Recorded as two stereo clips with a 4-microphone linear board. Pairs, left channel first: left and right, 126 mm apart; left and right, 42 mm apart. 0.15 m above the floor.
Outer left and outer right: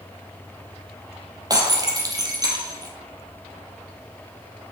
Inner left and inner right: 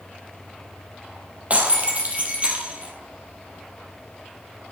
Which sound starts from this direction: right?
Breaking glass, at 1.5 s.